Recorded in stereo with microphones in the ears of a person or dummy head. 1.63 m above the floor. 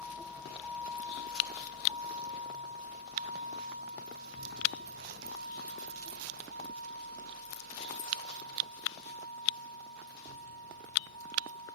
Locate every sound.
0.0 s a vehicle: centre (ahead or behind); by 11.8 s 80° right